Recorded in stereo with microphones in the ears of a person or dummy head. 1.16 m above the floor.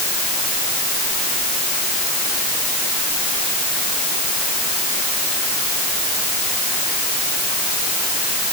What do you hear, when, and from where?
Only background noise.